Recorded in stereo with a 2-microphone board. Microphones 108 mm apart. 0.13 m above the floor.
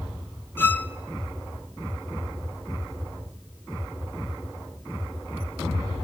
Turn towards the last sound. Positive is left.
turn(degrees=20)  # may be behind; listen again after turning